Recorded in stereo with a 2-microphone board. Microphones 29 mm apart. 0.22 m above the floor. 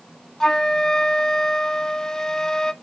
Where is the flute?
20° left (ahead or behind), 0.6 m.